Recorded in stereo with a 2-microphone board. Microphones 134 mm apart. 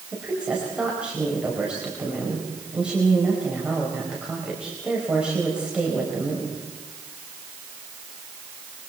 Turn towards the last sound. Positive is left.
turn(degrees=-5)  # may be behind; listen again after turning